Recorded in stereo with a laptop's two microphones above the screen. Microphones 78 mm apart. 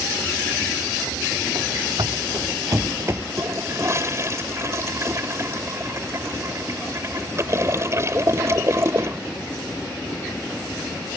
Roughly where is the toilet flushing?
Right.